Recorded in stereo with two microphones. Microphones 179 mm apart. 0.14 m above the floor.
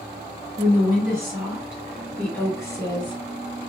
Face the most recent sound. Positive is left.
turn(degrees=35)  # may be behind; listen again after turning